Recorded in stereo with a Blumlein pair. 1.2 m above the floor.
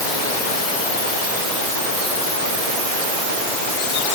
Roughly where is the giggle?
I don't hear a giggle.